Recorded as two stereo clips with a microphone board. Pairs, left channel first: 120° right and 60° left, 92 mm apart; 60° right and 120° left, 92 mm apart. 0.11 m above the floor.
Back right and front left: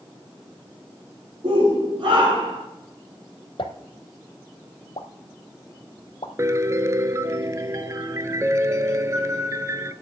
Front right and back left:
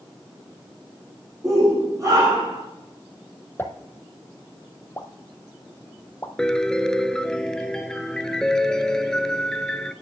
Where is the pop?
125° right, 1.2 m.